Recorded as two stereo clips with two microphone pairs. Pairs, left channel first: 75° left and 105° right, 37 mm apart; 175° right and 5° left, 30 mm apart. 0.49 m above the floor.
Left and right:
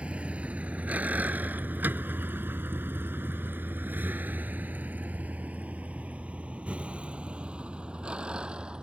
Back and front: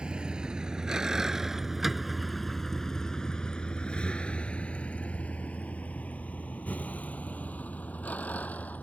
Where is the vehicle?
45° right; by 8.8 s 165° right.